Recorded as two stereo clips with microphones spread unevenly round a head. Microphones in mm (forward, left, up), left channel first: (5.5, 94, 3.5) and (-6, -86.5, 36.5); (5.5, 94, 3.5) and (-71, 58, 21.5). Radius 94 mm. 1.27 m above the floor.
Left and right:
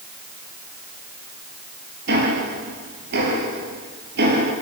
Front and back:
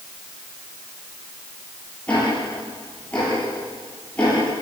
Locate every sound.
2.1 s ticking: 60° right, 7 m